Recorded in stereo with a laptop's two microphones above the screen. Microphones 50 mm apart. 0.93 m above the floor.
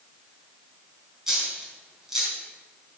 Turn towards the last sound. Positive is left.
turn(degrees=-10)  # may be behind; listen again after turning